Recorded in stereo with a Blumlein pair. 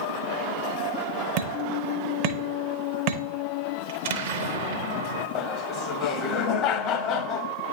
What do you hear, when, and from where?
1.4 s hammering: 45° right, 0.7 m
3.9 s an explosion: 55° right, 0.7 m
5.3 s laughter: 35° left, 0.7 m